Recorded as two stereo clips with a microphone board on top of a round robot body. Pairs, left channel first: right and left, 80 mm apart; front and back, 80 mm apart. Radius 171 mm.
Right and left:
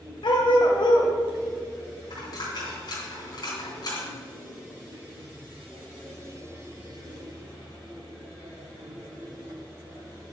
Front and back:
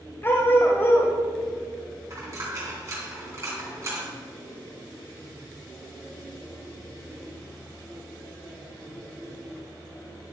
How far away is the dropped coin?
About 2.5 m.